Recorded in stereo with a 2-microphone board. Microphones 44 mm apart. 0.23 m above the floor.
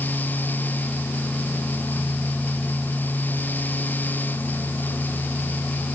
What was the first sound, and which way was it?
Only background noise.